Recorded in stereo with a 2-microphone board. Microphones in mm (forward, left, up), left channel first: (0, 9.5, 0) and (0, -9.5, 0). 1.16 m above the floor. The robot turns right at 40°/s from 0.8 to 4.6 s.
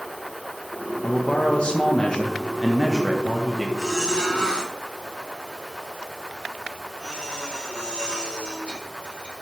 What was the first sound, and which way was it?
A man speaking, 105° left.